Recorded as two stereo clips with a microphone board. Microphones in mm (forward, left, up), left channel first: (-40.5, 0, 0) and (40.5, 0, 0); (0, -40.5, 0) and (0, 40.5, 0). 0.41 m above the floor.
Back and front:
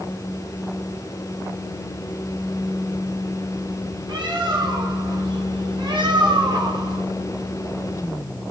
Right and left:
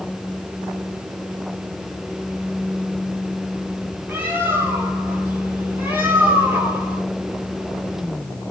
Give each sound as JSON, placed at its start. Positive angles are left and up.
{"t": 4.1, "sound": "a bird", "azimuth_deg": 25, "distance_m": 1.5}